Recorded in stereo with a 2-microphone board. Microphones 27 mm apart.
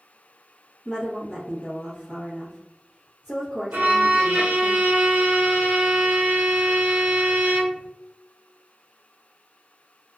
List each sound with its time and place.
0.8 s a woman speaking: 5° right (ahead or behind), 1.0 m
3.7 s a violin: 75° right (ahead or behind), 0.5 m